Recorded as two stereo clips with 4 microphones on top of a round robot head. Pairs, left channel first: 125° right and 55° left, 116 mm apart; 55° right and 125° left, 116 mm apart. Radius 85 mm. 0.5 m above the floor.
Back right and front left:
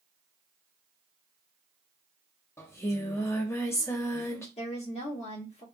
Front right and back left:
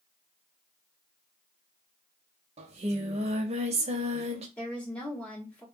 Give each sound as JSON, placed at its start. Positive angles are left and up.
{"t": 2.6, "sound": "singing", "azimuth_deg": 165, "distance_m": 0.7}
{"t": 4.6, "sound": "a woman speaking", "azimuth_deg": -130, "distance_m": 1.8}